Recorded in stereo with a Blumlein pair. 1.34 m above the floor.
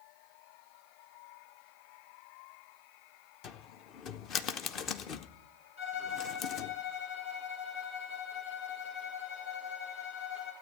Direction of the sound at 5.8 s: 60° left.